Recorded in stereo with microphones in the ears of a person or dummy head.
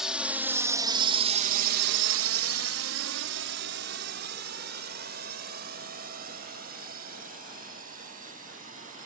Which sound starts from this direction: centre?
A drone, at 0.0 s.